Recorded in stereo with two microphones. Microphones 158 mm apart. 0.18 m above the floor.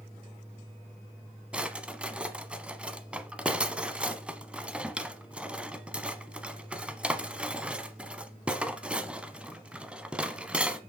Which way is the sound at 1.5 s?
10° right (ahead or behind).